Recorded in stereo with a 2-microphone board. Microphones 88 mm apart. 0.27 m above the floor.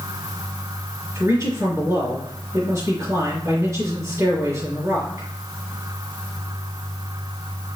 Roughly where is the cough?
I don't hear a cough.